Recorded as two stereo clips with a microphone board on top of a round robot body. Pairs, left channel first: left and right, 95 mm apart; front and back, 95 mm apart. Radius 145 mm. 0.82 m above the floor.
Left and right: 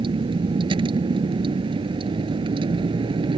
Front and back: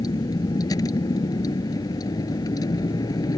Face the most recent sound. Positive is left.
turn(degrees=-55)